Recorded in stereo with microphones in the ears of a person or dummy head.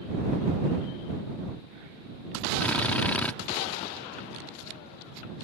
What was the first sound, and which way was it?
A drill, centre (ahead or behind).